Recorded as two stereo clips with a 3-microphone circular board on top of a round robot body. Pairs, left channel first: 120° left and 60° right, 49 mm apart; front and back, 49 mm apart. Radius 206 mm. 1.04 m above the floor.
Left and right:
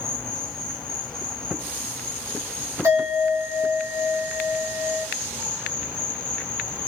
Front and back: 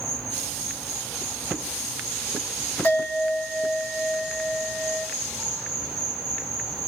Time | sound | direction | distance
0.0 | an insect | 100° right | 1.1 m
2.8 | a bell | 55° right | 0.8 m